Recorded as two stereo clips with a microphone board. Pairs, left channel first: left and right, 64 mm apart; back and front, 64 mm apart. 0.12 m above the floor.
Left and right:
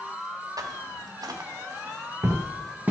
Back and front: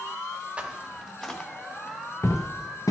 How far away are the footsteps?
About 0.8 m.